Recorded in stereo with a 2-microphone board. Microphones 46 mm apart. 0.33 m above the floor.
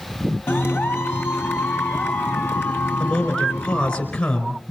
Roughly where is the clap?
Left.